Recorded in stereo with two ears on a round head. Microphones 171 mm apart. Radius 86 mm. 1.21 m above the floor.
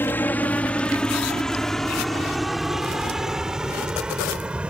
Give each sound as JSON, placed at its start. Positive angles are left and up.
{"t": 0.0, "sound": "a helicopter", "side_deg": 10}